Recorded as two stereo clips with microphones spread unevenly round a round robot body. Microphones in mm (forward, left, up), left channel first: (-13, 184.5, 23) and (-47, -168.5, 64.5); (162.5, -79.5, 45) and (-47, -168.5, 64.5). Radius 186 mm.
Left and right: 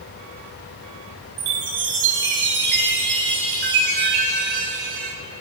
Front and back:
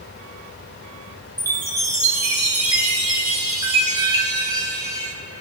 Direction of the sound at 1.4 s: 80° right.